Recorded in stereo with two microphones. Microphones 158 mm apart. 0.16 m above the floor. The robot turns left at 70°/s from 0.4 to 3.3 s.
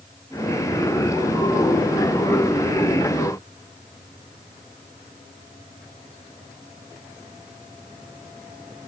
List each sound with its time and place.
Only background noise.